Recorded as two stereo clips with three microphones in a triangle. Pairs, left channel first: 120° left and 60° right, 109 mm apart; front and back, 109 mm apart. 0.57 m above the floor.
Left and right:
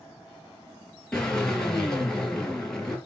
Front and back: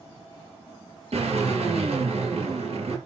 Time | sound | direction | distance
1.1 | a drill | 155° right | 5 m